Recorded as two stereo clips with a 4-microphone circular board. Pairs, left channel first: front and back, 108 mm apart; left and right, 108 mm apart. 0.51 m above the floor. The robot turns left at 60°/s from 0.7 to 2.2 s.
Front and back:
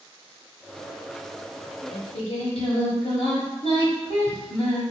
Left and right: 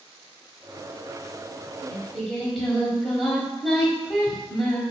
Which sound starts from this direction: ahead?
Singing, at 1.9 s.